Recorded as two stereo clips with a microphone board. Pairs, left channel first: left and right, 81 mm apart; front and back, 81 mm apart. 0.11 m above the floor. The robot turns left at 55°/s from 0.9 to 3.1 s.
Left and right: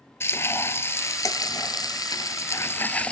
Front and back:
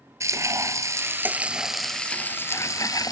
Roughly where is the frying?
Behind left.